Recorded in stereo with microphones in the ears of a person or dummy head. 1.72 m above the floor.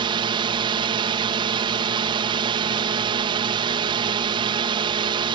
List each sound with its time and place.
0.0 s a drone: 25° right (ahead or behind)